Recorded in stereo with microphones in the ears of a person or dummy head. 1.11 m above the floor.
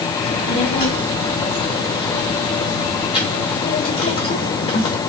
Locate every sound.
0.2 s a child speaking: 45° left (ahead or behind), 1.2 m